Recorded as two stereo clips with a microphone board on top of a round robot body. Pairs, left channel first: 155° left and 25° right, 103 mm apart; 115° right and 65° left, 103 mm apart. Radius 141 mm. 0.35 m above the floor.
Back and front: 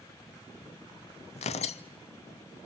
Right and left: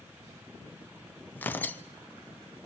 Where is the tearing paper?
175° left, 0.6 m.